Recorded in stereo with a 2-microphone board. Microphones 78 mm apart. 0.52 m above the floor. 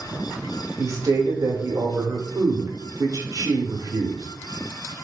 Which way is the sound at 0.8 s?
45° right (ahead or behind).